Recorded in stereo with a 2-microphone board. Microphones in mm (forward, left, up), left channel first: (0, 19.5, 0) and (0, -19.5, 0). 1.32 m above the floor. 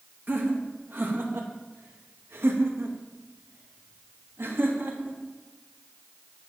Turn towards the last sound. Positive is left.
turn(degrees=-65)  # may be behind; listen again after turning